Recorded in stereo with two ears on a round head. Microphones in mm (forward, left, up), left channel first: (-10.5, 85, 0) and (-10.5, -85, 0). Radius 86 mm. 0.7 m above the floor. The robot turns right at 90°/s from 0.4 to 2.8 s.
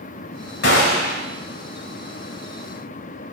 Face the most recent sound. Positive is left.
turn(degrees=-105)